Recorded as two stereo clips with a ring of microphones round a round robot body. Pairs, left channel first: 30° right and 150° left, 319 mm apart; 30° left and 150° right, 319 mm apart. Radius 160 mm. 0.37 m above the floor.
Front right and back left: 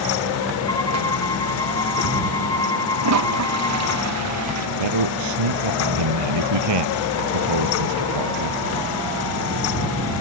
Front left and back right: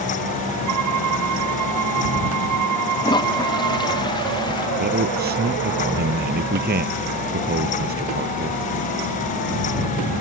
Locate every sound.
0.7 s a violin: 110° right
3.0 s a toilet flushing: 105° left
4.8 s a man speaking: 150° left